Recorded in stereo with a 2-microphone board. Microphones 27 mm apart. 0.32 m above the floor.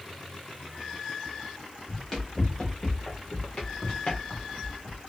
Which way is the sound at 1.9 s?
10° left (ahead or behind).